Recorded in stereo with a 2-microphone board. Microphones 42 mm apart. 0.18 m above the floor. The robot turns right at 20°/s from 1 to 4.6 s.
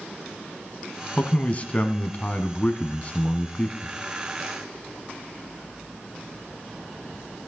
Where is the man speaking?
75° left, 1.2 m; by 3.9 s 130° left, 1.2 m.